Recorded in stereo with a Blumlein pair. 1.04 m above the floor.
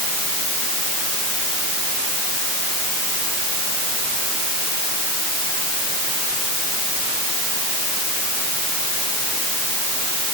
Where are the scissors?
No scissors in this recording.